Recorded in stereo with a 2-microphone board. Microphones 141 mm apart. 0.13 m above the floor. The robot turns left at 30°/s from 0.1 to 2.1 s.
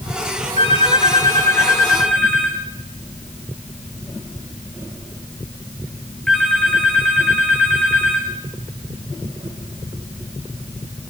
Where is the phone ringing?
55° left, 5 m; by 8.3 s 5° left, 5 m.